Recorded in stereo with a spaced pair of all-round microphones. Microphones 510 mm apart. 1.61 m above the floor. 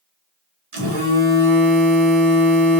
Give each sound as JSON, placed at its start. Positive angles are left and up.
{"t": 0.7, "sound": "a phone buzzing", "side_deg": -80, "distance_m": 1.1}